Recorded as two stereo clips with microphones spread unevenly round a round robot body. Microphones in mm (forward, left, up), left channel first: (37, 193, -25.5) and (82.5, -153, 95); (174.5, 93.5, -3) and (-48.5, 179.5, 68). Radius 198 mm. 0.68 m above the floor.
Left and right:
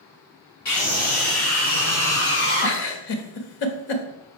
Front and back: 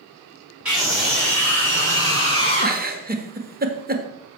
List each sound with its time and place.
0.7 s a scream: 70° left, 6.5 m; by 2.8 s 45° left, 6.5 m
2.6 s a giggle: 105° left, 1.6 m